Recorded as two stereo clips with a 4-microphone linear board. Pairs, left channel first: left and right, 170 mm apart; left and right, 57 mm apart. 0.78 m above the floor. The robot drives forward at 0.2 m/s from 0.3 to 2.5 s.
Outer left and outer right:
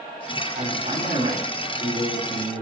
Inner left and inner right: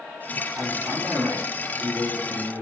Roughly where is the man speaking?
Right.